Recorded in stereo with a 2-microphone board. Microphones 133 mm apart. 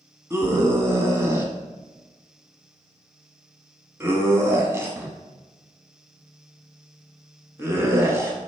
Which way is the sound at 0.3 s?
20° right (ahead or behind).